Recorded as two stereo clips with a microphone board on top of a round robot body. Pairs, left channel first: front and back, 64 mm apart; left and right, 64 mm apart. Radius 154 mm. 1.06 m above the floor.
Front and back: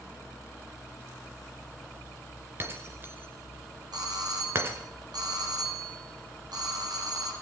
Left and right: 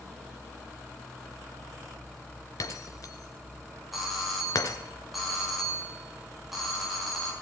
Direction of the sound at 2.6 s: 125° left.